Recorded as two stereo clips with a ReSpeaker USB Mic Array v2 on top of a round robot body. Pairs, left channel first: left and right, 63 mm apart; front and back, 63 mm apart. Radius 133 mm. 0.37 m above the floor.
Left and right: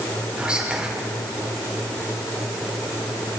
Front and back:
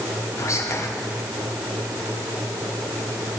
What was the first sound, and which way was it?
Whispering, 20° right.